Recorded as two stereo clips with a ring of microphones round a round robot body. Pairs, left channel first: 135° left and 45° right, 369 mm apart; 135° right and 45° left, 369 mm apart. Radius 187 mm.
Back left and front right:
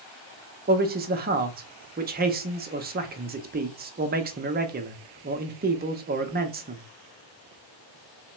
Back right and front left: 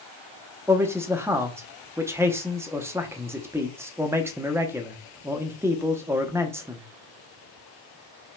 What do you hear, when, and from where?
0.7 s a man speaking: 30° right, 0.7 m